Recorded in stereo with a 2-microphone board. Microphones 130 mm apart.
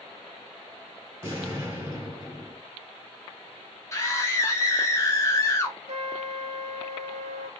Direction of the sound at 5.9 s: 60° right (ahead or behind).